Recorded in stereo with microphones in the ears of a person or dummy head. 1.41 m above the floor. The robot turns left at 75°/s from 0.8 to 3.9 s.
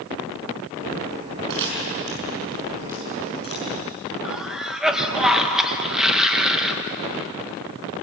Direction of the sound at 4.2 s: Centre (ahead or behind).